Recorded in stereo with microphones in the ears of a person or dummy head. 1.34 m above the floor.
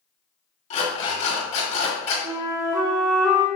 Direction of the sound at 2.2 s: 10° right (ahead or behind).